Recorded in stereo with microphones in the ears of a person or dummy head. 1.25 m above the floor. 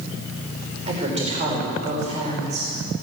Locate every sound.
0.9 s a woman speaking: 40° right (ahead or behind), 5 m